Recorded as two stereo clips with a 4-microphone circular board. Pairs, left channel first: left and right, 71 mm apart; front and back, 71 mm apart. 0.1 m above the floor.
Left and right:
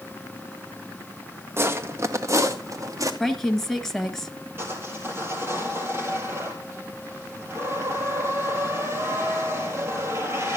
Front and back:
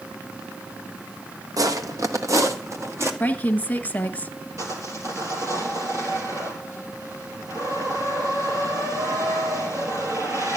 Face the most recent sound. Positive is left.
turn(degrees=-145)